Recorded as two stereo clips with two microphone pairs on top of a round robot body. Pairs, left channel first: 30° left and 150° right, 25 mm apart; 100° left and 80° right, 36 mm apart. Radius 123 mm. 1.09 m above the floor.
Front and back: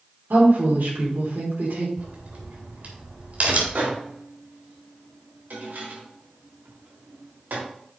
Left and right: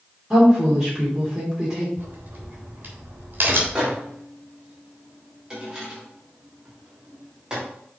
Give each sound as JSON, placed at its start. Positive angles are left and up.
{"t": 0.3, "sound": "a woman speaking", "azimuth_deg": -155, "distance_m": 3.5}
{"t": 2.0, "sound": "a crack", "azimuth_deg": -120, "distance_m": 3.0}
{"t": 3.8, "sound": "a microwave", "azimuth_deg": -150, "distance_m": 3.0}